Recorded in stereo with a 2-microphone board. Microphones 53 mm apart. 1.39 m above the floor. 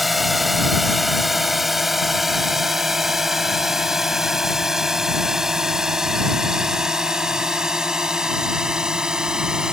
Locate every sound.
0.0 s a drone: centre (ahead or behind); by 9.7 s 10° right (ahead or behind)